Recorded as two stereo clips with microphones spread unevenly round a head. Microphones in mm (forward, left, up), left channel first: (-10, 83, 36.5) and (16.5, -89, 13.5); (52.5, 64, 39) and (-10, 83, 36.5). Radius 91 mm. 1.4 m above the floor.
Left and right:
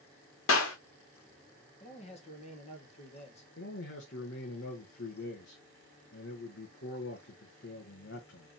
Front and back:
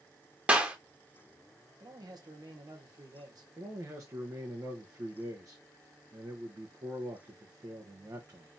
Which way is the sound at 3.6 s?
125° left.